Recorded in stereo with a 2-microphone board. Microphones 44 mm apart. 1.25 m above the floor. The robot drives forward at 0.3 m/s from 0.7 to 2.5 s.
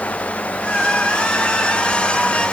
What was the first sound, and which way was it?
Only background noise.